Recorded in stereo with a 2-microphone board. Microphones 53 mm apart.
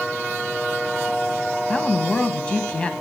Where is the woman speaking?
20° left (ahead or behind), 1.3 m.